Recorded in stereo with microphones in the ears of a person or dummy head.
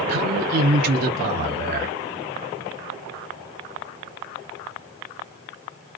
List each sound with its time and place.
0.1 s a man speaking: 50° right (ahead or behind), 0.9 m